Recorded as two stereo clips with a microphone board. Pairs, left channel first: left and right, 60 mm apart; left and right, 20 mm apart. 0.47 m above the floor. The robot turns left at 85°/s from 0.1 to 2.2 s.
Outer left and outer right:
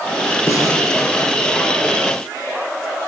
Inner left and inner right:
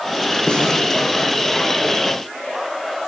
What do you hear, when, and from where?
0.5 s a snare drum: 55° left (ahead or behind), 6 m; by 0.8 s 80° left, 6 m